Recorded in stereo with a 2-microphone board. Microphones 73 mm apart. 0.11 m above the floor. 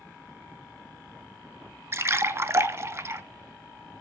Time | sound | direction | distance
1.9 | a splash | 35° right (ahead or behind) | 0.6 m